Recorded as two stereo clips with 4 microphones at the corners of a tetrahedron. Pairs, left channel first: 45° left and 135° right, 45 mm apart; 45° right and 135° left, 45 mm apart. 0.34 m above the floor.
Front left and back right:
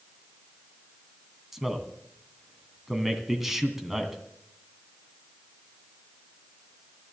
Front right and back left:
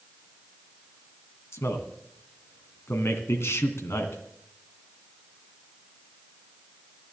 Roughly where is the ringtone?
No ringtone in this recording.